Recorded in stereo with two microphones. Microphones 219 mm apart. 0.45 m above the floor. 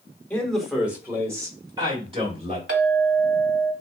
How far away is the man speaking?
About 1.1 m.